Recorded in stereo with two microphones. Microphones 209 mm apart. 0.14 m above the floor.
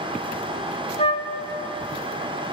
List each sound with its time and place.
1.0 s a flute: 30° left (ahead or behind), 0.5 m